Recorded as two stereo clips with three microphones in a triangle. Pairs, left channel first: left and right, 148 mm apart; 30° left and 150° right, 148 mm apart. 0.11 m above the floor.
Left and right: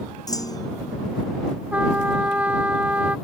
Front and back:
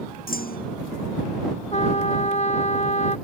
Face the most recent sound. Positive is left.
turn(degrees=-10)